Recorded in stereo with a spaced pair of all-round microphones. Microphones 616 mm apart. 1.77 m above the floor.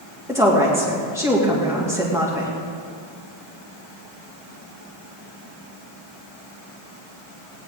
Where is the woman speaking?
5° right (ahead or behind), 2.5 m.